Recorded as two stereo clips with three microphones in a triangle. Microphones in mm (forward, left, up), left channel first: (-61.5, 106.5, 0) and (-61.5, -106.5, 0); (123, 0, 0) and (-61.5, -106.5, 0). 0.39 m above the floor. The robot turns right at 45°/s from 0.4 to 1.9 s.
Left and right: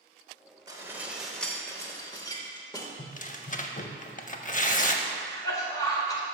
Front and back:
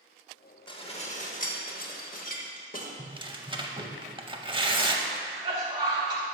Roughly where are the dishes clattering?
Ahead right.